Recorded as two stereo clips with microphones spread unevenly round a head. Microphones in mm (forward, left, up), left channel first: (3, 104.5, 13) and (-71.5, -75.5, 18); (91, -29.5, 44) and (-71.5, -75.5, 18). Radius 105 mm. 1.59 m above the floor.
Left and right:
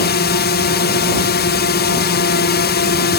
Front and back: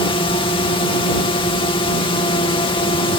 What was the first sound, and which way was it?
A drone, 80° left.